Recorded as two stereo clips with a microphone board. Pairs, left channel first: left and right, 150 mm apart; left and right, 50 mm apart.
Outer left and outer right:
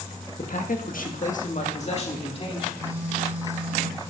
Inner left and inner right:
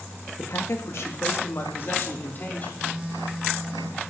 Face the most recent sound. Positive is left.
turn(degrees=-15)  # may be behind; listen again after turning